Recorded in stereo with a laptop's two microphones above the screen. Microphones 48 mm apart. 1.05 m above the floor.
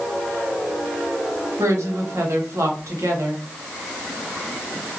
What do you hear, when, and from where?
1.6 s a woman speaking: 85° right, 1.2 m